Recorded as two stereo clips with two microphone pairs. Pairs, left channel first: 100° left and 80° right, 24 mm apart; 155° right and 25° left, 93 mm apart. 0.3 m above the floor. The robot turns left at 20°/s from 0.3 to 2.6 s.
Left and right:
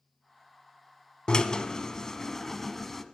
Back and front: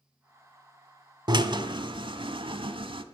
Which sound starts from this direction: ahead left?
A drill, at 1.3 s.